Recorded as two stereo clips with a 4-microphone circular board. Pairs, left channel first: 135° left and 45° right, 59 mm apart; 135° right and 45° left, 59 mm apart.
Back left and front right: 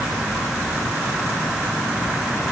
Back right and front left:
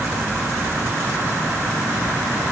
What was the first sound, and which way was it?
Only background noise.